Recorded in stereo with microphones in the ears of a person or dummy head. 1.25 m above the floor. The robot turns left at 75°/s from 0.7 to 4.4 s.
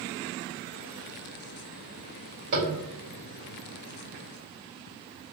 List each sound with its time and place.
2.5 s tapping: 45° right (ahead or behind), 1.7 m; by 2.7 s 60° right (ahead or behind), 1.7 m